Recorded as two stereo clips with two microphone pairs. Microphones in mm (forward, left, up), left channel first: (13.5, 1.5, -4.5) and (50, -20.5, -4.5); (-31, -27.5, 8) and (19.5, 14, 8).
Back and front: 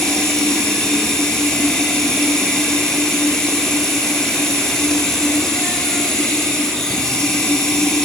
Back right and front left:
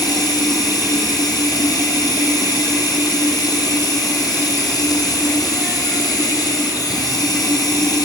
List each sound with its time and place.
0.0 s running water: 135° right, 6.5 m